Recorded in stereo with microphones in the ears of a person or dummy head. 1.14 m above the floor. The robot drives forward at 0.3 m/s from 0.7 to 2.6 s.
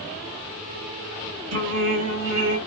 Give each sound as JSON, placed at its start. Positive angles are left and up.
{"t": 1.5, "sound": "singing", "side_deg": -70, "distance_m": 1.8}